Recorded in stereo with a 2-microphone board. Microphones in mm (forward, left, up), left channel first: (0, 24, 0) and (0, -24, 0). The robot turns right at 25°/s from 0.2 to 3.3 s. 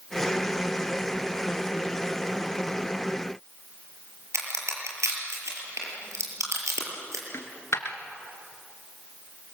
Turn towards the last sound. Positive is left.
turn(degrees=75)  # may be behind; listen again after turning